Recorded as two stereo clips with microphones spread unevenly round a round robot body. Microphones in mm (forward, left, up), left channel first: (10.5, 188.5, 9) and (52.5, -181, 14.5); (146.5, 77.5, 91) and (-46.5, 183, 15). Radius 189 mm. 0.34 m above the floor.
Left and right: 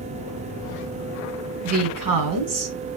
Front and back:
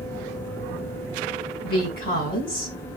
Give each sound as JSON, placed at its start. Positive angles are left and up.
{"t": 1.6, "sound": "a woman speaking", "azimuth_deg": -90, "distance_m": 2.0}